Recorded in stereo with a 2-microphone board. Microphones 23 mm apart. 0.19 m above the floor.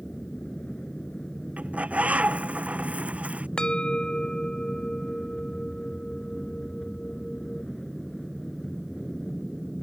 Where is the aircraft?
40° left (ahead or behind); by 9.8 s centre (ahead or behind).